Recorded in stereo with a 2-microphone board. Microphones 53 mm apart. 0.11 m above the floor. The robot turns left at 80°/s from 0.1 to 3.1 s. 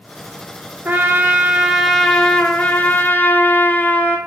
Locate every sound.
0.8 s a trumpet: 105° right, 0.6 m; by 4.2 s 75° left, 0.6 m